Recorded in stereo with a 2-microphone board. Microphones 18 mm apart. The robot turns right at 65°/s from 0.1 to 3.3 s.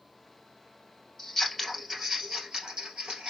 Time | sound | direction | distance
1.2 | scissors | 20° left (ahead or behind) | 2 m